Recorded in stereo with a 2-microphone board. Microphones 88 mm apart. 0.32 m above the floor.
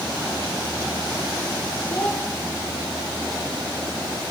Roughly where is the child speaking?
Left.